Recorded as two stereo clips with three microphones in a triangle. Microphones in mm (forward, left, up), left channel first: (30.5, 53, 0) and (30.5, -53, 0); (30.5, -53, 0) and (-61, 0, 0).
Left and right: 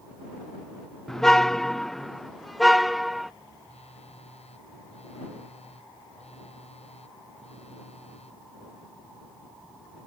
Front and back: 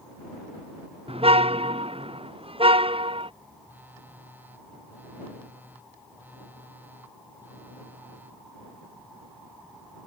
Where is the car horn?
175° left; by 3.3 s straight behind.